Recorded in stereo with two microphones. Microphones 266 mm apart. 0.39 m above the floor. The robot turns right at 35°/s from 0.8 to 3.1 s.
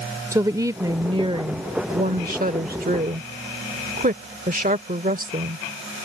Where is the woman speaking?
155° right; by 5.6 s 75° right.